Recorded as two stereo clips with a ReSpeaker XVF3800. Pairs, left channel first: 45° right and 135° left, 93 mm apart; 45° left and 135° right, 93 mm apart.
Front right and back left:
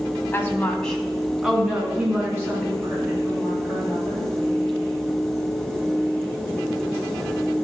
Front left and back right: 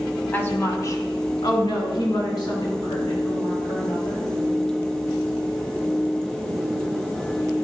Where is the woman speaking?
Straight ahead, 1.7 m; by 4.3 s 80° left, 5.5 m.